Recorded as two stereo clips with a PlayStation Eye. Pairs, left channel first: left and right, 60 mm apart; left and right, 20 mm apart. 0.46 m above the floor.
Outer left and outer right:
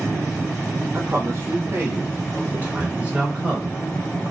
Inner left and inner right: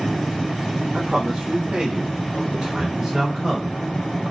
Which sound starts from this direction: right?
A man speaking, at 0.9 s.